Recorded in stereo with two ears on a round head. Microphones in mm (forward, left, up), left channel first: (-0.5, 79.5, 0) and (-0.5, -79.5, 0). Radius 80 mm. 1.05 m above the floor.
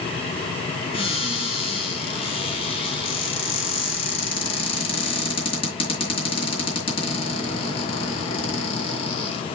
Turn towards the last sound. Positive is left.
turn(degrees=35)  # may be behind; listen again after turning